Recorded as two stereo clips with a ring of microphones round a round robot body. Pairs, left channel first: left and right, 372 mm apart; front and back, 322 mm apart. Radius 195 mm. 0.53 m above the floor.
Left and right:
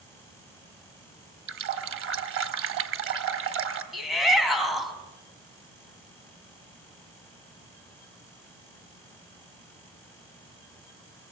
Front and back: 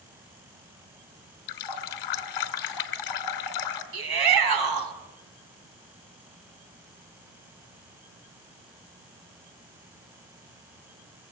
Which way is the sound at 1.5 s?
35° right.